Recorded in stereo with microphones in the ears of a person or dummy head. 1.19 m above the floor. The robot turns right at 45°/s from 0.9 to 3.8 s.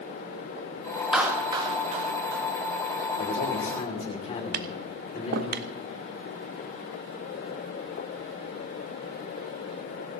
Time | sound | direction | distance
1.1 | a clap | 15° right (ahead or behind) | 1.8 m
3.2 | a man speaking | 55° left (ahead or behind) | 3 m
4.5 | tapping | 65° right (ahead or behind) | 0.7 m